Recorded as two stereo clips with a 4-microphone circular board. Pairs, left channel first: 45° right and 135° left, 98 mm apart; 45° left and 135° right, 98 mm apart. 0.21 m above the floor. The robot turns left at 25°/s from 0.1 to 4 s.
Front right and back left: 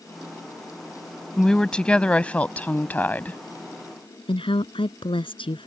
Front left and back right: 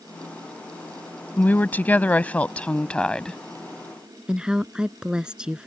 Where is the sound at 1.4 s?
25° left; by 3.4 s 25° right.